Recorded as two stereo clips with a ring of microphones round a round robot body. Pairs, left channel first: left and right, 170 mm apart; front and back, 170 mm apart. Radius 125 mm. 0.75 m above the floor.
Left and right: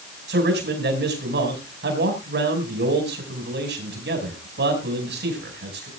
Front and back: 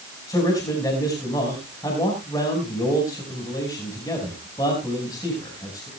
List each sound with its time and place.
0.3 s a man speaking: 75° right, 5 m